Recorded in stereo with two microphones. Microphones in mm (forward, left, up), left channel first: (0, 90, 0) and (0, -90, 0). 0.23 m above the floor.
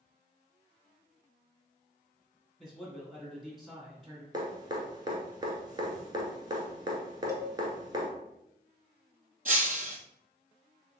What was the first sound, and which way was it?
A man speaking, centre (ahead or behind).